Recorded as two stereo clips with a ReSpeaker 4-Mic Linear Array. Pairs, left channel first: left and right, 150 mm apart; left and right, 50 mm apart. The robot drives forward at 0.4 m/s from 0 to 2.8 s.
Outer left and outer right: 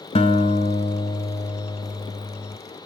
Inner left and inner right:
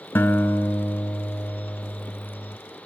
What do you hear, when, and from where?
0.1 s a guitar: 45° left (ahead or behind), 1.1 m; by 2.6 s 30° left (ahead or behind), 1.6 m